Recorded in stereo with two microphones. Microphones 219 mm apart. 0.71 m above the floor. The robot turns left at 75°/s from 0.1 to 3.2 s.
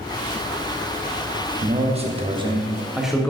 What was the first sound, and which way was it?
A man speaking, 25° right (ahead or behind).